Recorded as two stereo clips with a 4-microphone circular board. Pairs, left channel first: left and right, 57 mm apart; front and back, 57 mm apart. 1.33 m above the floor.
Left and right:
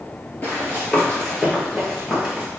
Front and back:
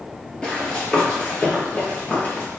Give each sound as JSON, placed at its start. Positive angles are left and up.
{"t": 0.4, "sound": "running footsteps", "azimuth_deg": 70, "distance_m": 1.6}